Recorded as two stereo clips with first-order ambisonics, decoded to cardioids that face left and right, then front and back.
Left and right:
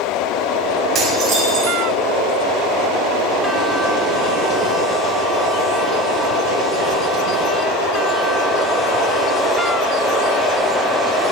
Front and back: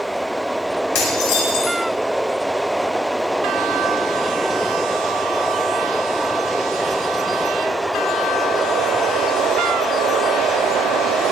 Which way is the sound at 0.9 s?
25° right.